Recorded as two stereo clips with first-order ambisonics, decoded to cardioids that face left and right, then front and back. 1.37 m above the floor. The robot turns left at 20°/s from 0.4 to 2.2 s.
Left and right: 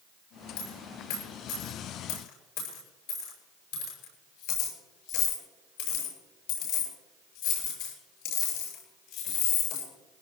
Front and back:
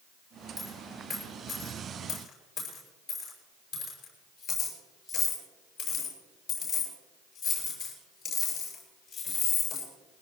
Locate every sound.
0.6 s a dropped coin: 100° left, 7 m; by 9.9 s 70° left, 7 m